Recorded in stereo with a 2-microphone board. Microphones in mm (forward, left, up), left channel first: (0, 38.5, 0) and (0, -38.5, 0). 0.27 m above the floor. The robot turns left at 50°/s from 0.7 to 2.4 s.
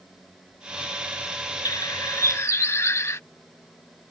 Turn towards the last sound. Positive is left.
turn(degrees=45)